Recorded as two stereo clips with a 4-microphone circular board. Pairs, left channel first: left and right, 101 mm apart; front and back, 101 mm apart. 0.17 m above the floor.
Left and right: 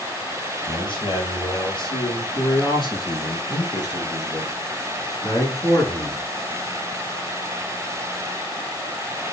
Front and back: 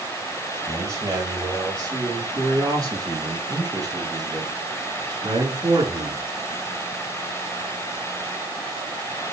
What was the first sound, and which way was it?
A man speaking, 120° left.